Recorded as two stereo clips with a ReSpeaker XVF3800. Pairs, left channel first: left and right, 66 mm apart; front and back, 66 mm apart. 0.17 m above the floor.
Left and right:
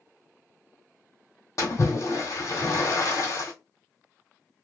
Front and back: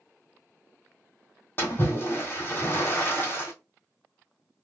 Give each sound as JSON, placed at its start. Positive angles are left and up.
{"t": 1.6, "sound": "a splash", "azimuth_deg": 55, "distance_m": 1.6}